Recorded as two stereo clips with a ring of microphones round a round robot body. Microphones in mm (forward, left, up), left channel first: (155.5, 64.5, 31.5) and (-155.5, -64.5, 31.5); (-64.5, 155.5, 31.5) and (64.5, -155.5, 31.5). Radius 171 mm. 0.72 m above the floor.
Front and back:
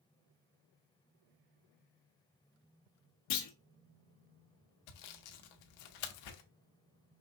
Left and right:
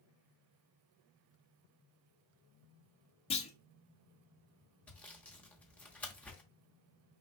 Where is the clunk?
40° left, 0.9 m.